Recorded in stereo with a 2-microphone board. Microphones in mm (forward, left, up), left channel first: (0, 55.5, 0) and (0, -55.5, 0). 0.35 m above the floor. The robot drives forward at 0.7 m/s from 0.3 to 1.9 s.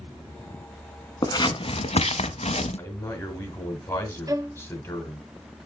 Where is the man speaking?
20° left (ahead or behind), 1.9 m.